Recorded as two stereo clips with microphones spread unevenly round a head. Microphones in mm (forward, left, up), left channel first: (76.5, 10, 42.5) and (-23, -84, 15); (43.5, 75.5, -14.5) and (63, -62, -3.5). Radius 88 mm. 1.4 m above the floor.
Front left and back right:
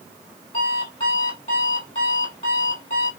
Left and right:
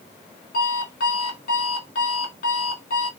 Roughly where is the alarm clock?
Left.